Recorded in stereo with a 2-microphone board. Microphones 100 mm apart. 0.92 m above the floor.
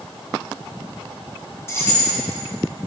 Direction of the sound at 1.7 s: 25° left (ahead or behind).